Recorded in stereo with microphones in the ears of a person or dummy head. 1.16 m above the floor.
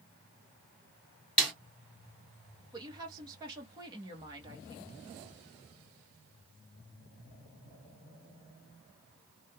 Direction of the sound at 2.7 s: 25° right (ahead or behind).